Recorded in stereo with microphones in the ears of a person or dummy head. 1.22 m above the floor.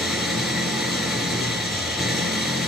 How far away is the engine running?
About 4.5 m.